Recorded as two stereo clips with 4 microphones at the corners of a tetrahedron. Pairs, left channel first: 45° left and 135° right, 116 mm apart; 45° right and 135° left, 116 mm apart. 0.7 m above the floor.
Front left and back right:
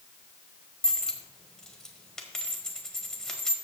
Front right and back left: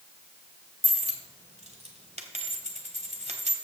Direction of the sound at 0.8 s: 130° left.